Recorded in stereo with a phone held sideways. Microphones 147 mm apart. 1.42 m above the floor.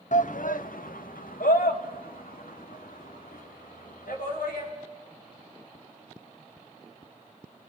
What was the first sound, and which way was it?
A shout, 65° left (ahead or behind).